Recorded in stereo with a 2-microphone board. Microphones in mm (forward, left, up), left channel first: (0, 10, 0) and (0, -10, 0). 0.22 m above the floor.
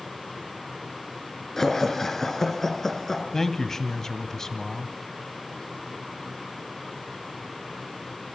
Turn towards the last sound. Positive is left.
turn(degrees=25)  # may be behind; listen again after turning